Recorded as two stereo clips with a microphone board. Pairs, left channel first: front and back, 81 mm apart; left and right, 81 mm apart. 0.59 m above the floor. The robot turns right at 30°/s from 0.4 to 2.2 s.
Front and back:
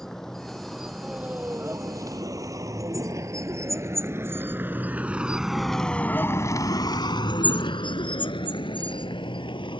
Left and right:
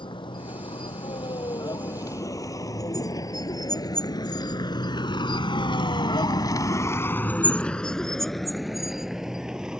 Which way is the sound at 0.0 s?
85° left.